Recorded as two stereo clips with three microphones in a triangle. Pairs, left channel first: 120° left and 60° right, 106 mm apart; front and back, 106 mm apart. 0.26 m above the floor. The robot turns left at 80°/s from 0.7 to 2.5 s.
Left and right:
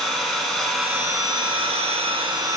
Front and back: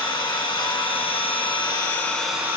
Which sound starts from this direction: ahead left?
An engine running, at 0.0 s.